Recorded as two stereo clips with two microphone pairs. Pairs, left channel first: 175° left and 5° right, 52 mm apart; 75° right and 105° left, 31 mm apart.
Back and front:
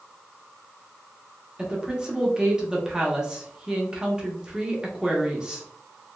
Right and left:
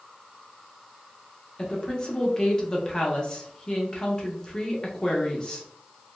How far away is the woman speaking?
About 0.7 m.